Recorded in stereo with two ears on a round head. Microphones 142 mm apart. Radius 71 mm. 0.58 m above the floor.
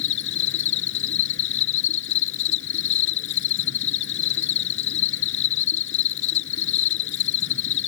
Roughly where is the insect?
Left.